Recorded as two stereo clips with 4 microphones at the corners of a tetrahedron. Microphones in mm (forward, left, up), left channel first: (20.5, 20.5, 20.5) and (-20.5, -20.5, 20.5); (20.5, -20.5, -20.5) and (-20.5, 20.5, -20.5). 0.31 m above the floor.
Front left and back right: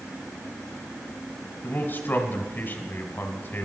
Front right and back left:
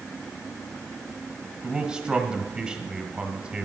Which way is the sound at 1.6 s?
70° left.